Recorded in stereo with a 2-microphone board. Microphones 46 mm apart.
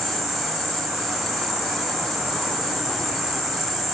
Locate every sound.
0.0 s an insect: centre (ahead or behind), 0.9 m